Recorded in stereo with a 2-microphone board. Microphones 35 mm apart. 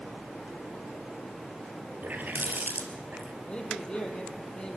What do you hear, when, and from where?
2.0 s a running tap: 60° right (ahead or behind), 1.9 m
3.5 s a man speaking: 30° left (ahead or behind), 3.5 m